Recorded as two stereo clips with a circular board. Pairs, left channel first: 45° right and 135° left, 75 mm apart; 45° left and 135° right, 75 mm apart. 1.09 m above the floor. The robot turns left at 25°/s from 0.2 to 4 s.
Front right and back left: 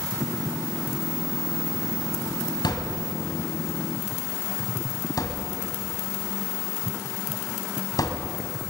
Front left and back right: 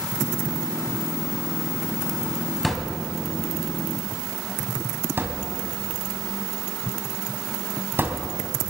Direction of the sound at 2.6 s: 45° right.